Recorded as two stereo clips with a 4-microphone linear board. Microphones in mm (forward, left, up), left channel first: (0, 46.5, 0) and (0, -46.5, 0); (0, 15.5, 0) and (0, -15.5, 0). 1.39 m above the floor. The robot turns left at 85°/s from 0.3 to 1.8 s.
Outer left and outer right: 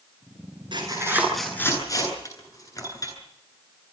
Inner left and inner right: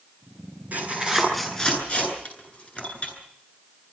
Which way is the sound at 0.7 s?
55° right (ahead or behind).